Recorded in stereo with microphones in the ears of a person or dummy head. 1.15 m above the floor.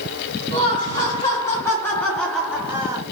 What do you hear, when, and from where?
0.5 s laughter: 20° left (ahead or behind), 1.9 m; by 3.0 s 25° right (ahead or behind), 0.7 m